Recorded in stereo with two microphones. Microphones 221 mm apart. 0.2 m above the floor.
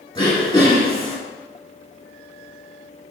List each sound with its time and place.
0.1 s throat clearing: 15° left (ahead or behind), 3.5 m